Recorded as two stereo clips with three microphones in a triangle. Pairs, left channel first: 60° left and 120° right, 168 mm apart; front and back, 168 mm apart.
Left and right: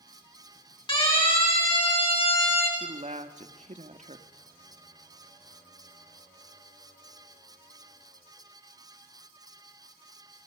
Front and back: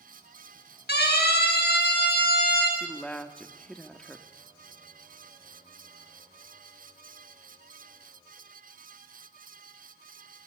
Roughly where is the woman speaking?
Right.